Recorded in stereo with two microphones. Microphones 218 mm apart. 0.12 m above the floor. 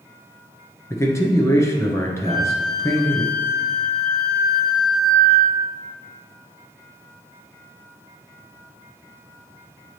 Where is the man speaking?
15° left (ahead or behind), 1.2 m.